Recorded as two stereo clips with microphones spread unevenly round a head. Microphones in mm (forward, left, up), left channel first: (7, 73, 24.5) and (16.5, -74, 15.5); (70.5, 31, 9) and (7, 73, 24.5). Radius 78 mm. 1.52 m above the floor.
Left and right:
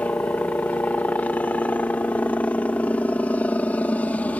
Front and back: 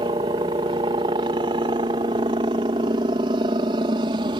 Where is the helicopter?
175° left.